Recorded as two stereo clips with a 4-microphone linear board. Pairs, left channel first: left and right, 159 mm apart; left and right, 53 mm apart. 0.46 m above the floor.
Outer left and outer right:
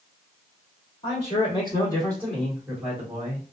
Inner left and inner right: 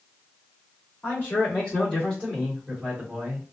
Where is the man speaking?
40° left (ahead or behind), 1.8 m; by 3.4 s 25° right (ahead or behind), 1.5 m.